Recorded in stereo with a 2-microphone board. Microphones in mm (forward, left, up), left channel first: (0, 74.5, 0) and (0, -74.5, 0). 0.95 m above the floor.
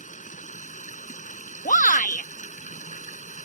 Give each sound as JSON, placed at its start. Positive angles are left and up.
{"t": 0.0, "sound": "running water", "side_deg": 55}
{"t": 1.6, "sound": "a shout", "side_deg": 55}